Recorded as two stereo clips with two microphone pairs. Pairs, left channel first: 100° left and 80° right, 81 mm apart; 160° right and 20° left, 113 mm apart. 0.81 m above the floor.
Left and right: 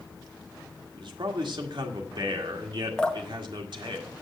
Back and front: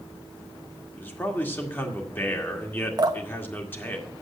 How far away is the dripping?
About 0.9 m.